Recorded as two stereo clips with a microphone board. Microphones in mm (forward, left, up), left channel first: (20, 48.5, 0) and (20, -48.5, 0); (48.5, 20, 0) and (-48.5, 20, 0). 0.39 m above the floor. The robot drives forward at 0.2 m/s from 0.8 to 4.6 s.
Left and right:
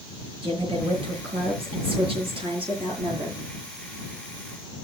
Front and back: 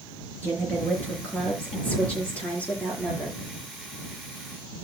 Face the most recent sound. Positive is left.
turn(degrees=-80)